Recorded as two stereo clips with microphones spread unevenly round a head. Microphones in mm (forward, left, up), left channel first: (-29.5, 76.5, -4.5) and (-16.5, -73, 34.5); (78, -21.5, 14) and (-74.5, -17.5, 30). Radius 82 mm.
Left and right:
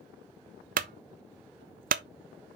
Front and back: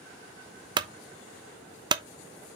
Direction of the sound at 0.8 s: 120° right.